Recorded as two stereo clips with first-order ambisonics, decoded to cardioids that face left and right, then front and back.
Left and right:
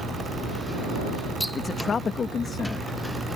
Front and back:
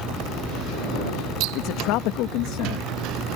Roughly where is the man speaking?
Ahead.